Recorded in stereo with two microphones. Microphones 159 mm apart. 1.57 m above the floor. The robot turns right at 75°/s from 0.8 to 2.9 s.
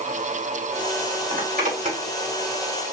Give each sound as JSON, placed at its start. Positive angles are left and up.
{"t": 1.3, "sound": "a zipper", "side_deg": -80, "distance_m": 2.5}